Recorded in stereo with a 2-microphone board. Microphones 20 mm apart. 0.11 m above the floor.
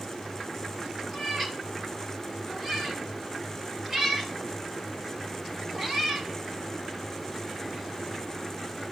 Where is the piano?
I don't hear a piano.